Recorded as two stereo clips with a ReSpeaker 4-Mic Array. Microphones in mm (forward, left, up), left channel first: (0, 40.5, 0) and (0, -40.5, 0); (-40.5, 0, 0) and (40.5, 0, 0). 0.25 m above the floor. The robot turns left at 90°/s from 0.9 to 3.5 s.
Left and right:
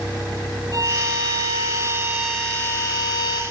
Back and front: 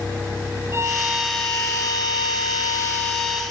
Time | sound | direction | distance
0.7 | a violin | 55° right | 4 m